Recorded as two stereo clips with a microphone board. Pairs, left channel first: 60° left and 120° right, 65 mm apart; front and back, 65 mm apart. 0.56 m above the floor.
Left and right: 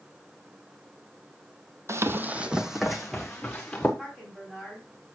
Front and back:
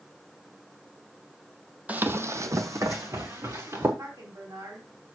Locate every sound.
1.9 s running footsteps: 120° right, 0.7 m; by 3.9 s 140° left, 2.5 m
4.0 s a woman speaking: 165° left, 4 m